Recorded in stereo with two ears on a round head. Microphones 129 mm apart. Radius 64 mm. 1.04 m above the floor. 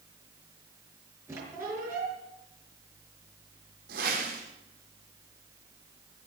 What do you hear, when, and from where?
1.3 s a squeak: 20° right (ahead or behind), 5.5 m
3.9 s a whoosh: 65° right (ahead or behind), 6.5 m